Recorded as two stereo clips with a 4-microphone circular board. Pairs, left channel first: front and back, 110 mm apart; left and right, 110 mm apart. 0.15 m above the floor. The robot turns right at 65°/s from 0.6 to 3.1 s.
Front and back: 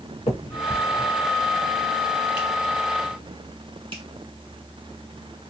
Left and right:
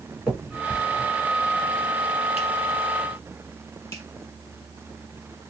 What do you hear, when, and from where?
0.3 s a finger snap: 15° right, 1.9 m; by 4.0 s 150° left, 1.9 m